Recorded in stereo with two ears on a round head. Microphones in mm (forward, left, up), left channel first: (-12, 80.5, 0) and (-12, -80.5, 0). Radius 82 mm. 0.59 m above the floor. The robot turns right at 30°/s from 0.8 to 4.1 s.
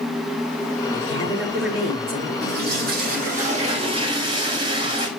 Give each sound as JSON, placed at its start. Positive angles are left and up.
{"t": 0.9, "sound": "a woman speaking", "azimuth_deg": -125, "distance_m": 6.5}
{"t": 2.4, "sound": "a toilet flushing", "azimuth_deg": -80, "distance_m": 2.0}